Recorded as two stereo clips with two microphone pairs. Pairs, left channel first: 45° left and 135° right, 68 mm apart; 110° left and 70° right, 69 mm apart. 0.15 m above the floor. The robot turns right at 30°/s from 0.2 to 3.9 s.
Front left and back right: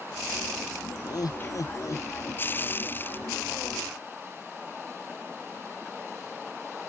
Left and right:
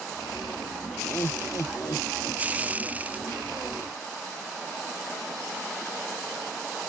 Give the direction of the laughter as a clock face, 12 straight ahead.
10 o'clock.